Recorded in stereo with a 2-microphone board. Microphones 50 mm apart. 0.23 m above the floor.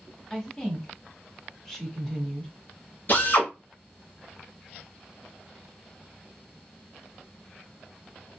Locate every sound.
0.3 s a woman speaking: 15° left (ahead or behind), 1.3 m
3.1 s a drill: 55° left (ahead or behind), 1.9 m